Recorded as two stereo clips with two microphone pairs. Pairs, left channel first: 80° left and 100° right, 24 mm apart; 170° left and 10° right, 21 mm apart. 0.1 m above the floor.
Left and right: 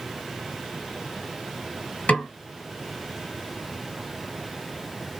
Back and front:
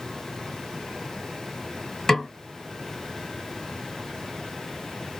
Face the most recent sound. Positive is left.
turn(degrees=95)